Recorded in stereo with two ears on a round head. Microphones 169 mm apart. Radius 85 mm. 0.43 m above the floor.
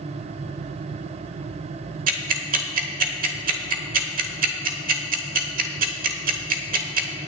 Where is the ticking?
45° right (ahead or behind), 1.3 m.